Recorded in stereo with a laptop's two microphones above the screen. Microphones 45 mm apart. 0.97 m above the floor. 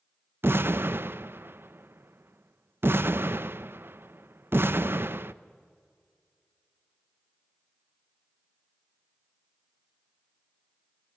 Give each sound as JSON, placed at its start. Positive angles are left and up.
{"t": 0.4, "sound": "an explosion", "side_deg": -50, "distance_m": 0.5}